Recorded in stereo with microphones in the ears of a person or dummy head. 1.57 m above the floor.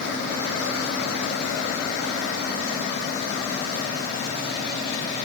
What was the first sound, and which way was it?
Only background noise.